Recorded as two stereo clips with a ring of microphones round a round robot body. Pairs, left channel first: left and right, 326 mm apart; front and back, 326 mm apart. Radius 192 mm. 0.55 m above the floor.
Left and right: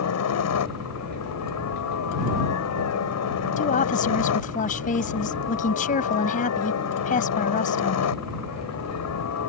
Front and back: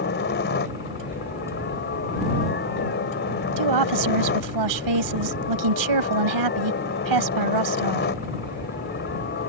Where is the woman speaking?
160° left.